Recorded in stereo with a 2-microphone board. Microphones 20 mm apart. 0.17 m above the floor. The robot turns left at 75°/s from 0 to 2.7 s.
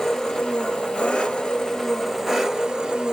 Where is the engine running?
160° left, 1.0 m; by 3.1 s 40° right, 1.0 m.